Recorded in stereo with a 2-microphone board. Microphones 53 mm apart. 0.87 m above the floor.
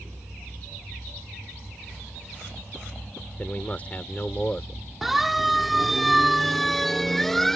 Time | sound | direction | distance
3.4 | a man speaking | 30° left (ahead or behind) | ?
5.0 | a siren | 5° right (ahead or behind) | ?